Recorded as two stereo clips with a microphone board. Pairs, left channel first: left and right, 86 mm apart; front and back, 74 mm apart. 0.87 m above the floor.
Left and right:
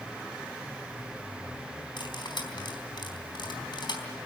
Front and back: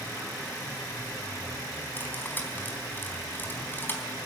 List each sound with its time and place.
2.0 s cutlery clinking: 65° left, 4 m